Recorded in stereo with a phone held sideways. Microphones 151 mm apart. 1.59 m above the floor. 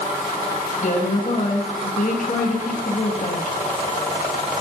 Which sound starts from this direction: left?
A woman speaking, at 0.8 s.